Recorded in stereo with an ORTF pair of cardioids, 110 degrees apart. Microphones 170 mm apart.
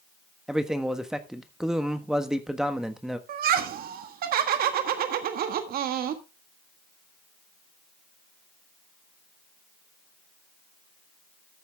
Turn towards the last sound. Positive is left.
turn(degrees=-65)